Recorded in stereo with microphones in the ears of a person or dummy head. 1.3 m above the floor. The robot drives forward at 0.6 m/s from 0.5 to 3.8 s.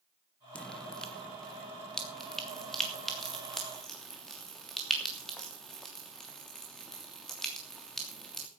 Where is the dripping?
5° left (ahead or behind), 0.9 m; by 8.5 s centre (ahead or behind), 3 m.